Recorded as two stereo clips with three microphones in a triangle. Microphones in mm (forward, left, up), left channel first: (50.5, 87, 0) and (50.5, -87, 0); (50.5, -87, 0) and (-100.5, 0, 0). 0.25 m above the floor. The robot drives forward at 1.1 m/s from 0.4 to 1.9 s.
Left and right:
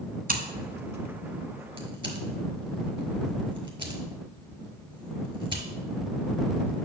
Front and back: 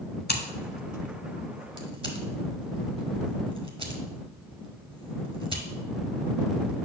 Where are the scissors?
55° right, 0.8 m; by 6.9 s 150° right, 1.4 m.